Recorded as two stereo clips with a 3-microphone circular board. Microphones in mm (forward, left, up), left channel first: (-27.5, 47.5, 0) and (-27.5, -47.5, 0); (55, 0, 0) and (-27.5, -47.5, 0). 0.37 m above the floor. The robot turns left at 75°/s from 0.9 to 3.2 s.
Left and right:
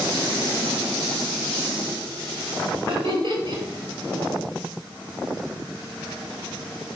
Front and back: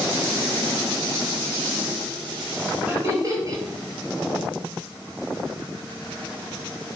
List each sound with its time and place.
2.9 s laughter: 80° right, 1.5 m; by 3.6 s 105° right, 1.5 m